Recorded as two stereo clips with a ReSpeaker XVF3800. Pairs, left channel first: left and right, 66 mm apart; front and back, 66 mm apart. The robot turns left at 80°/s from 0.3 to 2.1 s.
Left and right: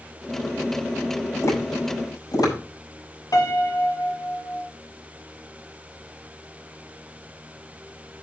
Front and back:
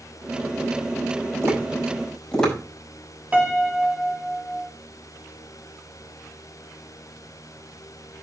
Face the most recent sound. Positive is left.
turn(degrees=115)